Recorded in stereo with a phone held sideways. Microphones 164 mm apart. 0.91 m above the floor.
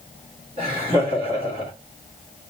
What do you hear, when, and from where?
0.6 s laughter: 30° right (ahead or behind), 2.5 m